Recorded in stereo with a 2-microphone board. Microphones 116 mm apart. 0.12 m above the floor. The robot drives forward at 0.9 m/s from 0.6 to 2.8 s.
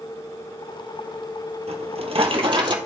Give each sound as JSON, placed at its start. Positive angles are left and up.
{"t": 1.7, "sound": "a drawer", "side_deg": -60, "distance_m": 1.5}